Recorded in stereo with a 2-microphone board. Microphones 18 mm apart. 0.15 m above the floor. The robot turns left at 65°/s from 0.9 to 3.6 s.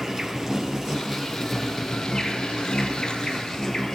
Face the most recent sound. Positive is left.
turn(degrees=40)